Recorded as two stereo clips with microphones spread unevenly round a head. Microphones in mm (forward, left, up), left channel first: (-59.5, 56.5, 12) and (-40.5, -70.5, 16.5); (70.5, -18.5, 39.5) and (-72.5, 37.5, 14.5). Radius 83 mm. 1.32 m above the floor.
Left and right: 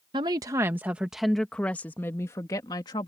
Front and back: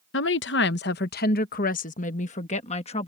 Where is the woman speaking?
15° right; by 3.1 s 30° left.